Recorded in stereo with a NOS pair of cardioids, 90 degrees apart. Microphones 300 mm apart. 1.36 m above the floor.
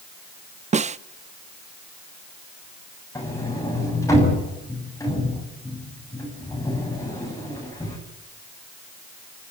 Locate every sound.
0.7 s a snare drum: 25° right, 0.6 m
3.1 s a sliding door: 10° left, 8.5 m